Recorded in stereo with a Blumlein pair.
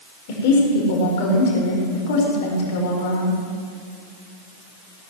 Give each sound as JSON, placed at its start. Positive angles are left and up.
{"t": 0.3, "sound": "a woman speaking", "azimuth_deg": 50, "distance_m": 4.5}